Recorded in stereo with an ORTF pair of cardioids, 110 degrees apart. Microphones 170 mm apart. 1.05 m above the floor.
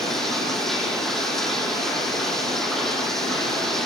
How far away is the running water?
About 9 m.